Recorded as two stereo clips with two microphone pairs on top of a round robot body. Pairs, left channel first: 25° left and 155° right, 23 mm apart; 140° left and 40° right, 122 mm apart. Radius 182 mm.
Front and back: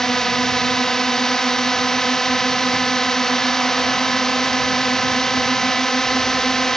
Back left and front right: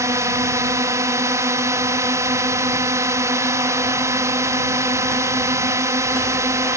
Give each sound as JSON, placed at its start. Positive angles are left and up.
{"t": 0.0, "sound": "a drone", "azimuth_deg": 0}